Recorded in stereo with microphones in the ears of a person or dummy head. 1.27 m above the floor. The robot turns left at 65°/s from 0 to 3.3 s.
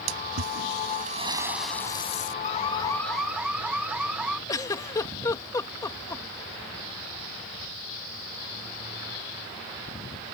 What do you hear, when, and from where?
0.1 s a splash: 80° right; by 2.3 s 135° left
2.4 s an alarm: 45° left; by 4.4 s 10° right
4.5 s a giggle: 20° left (ahead or behind)